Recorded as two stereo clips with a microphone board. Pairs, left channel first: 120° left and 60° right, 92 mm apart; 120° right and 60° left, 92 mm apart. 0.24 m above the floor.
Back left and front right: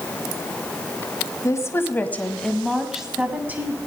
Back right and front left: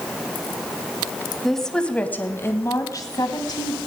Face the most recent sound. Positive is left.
turn(degrees=-125)